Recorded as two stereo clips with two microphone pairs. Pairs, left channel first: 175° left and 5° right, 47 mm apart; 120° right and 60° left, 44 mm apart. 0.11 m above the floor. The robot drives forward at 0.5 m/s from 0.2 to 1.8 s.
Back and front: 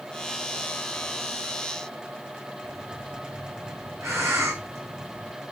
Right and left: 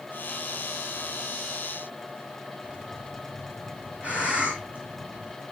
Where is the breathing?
5° left, 3.5 m.